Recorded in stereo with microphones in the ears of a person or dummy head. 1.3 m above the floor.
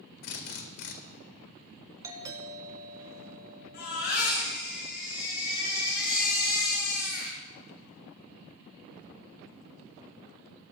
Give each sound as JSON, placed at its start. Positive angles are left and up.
{"t": 0.2, "sound": "a drill", "side_deg": 60, "distance_m": 2.0}
{"t": 2.0, "sound": "a doorbell", "side_deg": -15, "distance_m": 3.0}
{"t": 3.7, "sound": "a baby crying", "side_deg": 55, "distance_m": 9.5}